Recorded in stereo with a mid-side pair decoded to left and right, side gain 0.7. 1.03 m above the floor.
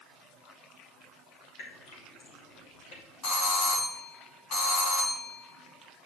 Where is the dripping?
70° left, 2.5 m.